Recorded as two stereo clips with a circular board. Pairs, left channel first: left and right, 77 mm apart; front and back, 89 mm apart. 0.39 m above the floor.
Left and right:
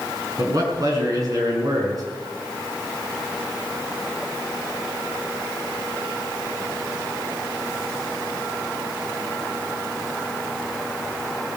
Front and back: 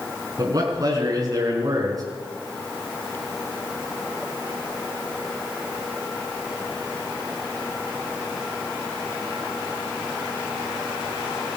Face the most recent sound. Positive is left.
turn(degrees=-130)